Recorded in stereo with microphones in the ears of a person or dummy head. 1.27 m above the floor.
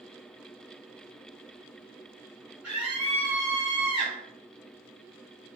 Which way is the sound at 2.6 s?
10° right (ahead or behind).